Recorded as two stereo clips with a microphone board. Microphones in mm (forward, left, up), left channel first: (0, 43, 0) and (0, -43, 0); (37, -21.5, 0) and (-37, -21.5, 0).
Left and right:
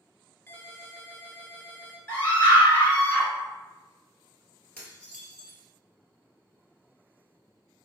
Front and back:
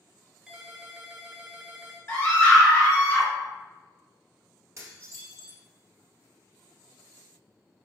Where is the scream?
40° left, 1.9 m.